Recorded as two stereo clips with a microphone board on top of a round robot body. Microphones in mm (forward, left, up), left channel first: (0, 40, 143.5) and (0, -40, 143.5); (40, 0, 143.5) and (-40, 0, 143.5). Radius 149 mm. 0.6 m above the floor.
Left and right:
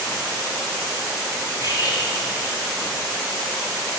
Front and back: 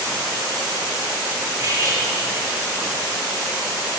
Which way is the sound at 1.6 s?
130° left.